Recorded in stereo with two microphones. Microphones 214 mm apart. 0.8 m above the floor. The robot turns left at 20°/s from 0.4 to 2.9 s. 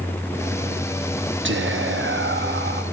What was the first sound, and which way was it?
Whispering, 65° right (ahead or behind).